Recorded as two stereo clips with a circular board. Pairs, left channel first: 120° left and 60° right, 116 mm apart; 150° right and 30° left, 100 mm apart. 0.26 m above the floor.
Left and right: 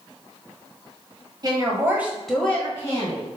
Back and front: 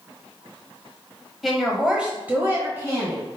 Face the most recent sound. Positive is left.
turn(degrees=80)